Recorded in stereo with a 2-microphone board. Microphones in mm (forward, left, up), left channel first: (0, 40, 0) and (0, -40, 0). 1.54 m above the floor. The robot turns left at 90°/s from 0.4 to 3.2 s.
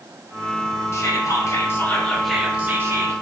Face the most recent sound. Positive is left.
turn(degrees=-85)